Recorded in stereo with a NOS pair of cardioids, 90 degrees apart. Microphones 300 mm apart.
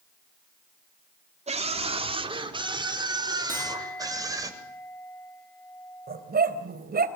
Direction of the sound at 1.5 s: 20° right.